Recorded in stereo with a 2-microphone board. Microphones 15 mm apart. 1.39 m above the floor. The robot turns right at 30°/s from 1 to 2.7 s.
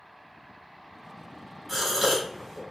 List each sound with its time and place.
1.7 s a gasp: 10° right (ahead or behind), 1.1 m; by 2.6 s 35° right (ahead or behind), 1.1 m